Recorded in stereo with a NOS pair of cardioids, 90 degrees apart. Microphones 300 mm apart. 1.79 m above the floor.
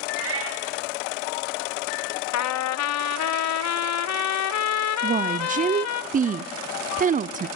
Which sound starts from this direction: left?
A trumpet, at 2.3 s.